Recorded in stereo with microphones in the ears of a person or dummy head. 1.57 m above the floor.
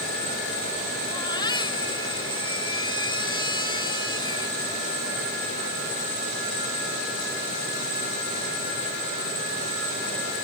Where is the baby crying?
25° left (ahead or behind).